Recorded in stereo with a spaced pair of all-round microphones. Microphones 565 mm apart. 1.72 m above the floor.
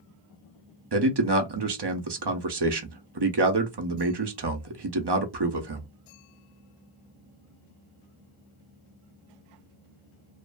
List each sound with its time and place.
0.9 s a man speaking: 45° right (ahead or behind), 0.6 m